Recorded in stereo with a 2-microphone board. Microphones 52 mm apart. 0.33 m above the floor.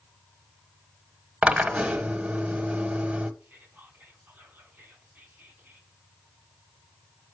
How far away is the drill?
About 0.8 m.